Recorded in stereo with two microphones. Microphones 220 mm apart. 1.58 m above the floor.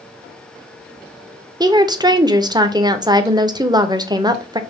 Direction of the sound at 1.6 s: 20° right (ahead or behind).